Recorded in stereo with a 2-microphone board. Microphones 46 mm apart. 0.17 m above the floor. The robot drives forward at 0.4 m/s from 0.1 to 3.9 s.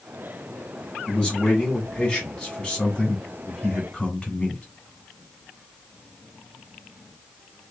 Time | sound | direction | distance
1.1 | a man speaking | 20° left (ahead or behind) | 1.7 m